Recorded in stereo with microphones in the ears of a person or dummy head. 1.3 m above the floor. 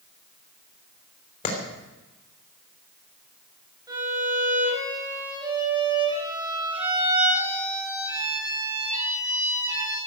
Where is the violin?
15° right (ahead or behind), 6.5 m.